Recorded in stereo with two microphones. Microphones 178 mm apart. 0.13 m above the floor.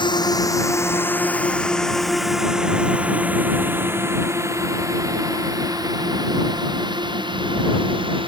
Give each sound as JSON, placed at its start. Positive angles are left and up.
{"t": 0.0, "sound": "a drone", "side_deg": 25}